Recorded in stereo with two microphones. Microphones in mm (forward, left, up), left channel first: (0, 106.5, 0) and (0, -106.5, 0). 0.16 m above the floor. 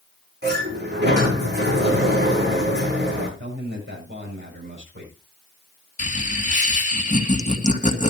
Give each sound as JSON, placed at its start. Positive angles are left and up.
{"t": 0.4, "sound": "a sliding door", "side_deg": -55, "distance_m": 8.0}
{"t": 3.4, "sound": "a man speaking", "side_deg": -60, "distance_m": 7.0}
{"t": 6.0, "sound": "laughter", "side_deg": 35, "distance_m": 1.9}